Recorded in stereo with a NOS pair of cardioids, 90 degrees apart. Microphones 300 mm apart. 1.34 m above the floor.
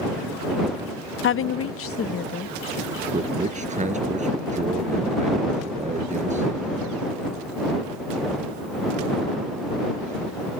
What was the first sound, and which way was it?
A woman speaking, 40° left.